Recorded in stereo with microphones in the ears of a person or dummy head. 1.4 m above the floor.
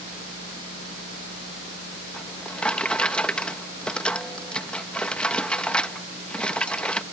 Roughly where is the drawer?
Centre.